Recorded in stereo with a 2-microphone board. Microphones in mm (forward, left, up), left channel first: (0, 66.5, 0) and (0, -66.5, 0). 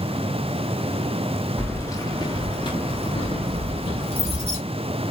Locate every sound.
1.6 s keys jangling: 15° left (ahead or behind), 0.7 m; by 4.6 s 50° left (ahead or behind), 2 m